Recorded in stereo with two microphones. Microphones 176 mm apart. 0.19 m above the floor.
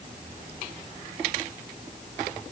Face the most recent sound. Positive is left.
No sound to turn to.